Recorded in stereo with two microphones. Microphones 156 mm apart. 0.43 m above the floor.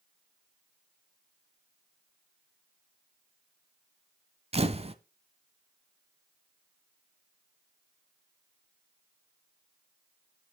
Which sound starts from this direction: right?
A camera shutter, at 4.5 s.